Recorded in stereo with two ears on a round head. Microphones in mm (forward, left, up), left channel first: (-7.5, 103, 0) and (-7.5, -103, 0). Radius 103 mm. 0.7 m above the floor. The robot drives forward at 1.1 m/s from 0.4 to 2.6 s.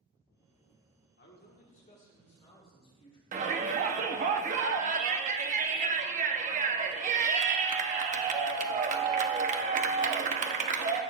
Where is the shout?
35° right (ahead or behind), 0.9 m.